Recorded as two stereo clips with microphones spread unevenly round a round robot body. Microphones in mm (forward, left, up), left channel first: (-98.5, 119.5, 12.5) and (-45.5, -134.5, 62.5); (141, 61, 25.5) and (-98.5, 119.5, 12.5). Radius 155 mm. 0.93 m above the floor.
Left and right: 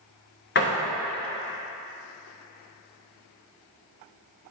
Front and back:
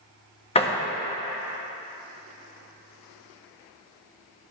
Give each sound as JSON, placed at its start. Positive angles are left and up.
{"t": 0.6, "sound": "a door slam", "azimuth_deg": 55, "distance_m": 1.2}